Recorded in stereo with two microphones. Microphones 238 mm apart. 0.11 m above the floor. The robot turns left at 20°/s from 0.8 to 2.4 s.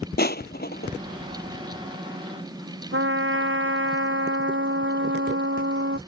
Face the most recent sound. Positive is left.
turn(degrees=-55)  # may be behind; listen again after turning